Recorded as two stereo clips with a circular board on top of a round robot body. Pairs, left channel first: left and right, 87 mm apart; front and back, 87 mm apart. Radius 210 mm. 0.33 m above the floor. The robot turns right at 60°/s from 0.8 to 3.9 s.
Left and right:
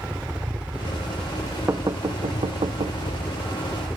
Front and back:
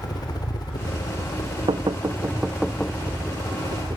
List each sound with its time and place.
0.0 s a helicopter: 15° right; by 4.0 s 170° left
1.7 s knocking: 150° right; by 3.0 s 70° right